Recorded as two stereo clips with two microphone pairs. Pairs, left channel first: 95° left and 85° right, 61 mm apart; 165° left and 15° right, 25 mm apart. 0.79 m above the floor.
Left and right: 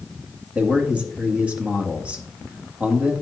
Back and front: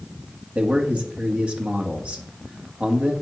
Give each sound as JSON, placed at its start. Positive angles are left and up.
{"t": 0.6, "sound": "a man speaking", "azimuth_deg": -20, "distance_m": 1.7}